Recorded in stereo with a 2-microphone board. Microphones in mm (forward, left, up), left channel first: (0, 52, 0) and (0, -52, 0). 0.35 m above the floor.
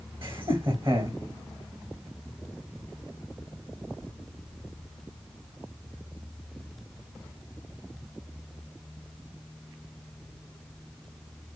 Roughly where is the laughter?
Right.